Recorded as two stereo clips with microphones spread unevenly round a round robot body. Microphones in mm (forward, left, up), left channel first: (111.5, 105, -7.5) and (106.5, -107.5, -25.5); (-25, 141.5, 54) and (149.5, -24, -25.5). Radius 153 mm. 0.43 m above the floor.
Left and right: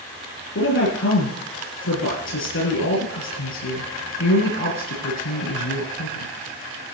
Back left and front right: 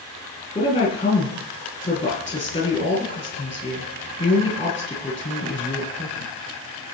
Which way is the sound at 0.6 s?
70° left.